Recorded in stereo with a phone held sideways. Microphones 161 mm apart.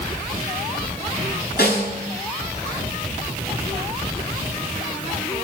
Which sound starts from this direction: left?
A snare drum, at 1.6 s.